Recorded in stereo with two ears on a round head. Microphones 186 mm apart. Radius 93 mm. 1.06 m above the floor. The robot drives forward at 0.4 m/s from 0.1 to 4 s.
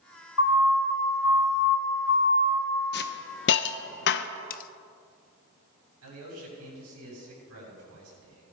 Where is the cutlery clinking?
40° left (ahead or behind), 0.6 m.